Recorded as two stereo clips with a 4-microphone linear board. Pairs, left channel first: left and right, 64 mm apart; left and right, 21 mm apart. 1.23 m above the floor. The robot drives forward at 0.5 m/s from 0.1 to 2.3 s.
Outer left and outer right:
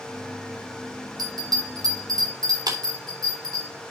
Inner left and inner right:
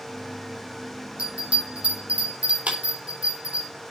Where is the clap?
85° right, 3.5 m.